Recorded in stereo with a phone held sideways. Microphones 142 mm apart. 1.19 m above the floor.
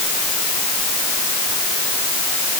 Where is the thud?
I don't hear a thud.